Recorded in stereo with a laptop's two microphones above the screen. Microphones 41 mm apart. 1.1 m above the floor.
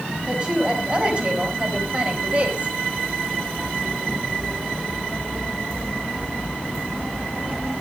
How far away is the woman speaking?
About 5.5 m.